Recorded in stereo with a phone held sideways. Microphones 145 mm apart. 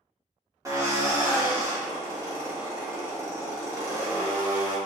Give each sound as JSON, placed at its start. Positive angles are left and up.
{"t": 0.7, "sound": "a drill", "side_deg": -20, "distance_m": 1.9}